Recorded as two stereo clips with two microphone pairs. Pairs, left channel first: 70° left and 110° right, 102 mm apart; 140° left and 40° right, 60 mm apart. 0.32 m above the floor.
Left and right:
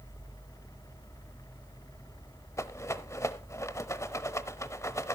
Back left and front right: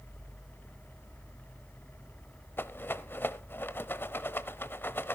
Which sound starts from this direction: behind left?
A rattle, at 2.6 s.